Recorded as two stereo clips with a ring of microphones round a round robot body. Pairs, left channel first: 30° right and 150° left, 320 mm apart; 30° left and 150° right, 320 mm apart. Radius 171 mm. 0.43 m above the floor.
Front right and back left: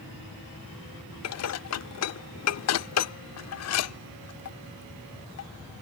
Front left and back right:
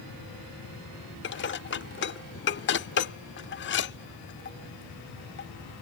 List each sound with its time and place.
1.2 s dishes clattering: 15° right